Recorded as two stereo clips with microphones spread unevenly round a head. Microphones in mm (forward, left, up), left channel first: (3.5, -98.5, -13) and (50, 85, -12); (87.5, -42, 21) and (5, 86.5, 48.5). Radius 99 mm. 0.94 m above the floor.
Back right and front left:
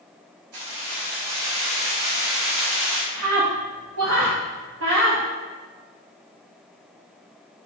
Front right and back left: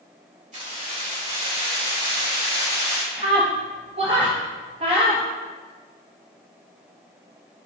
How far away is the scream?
About 1.3 m.